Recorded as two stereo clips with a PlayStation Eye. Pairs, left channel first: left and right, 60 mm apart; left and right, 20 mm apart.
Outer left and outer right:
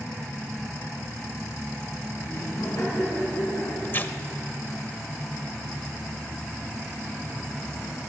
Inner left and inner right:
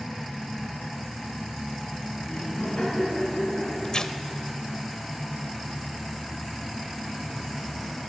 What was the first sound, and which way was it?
Laughter, 80° left.